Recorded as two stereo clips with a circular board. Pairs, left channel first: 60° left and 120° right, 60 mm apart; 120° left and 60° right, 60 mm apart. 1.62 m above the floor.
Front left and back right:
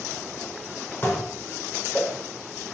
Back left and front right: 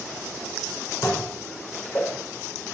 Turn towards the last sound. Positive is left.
turn(degrees=115)